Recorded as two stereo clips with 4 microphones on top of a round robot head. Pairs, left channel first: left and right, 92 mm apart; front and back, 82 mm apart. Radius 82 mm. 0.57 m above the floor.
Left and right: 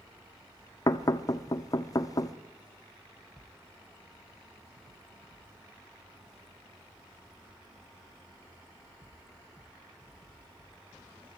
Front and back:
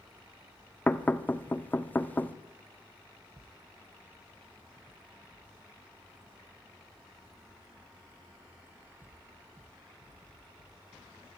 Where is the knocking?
60° left, 1.2 m.